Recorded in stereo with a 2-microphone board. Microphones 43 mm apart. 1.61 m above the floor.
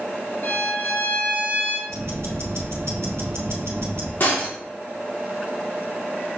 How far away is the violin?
About 1.4 m.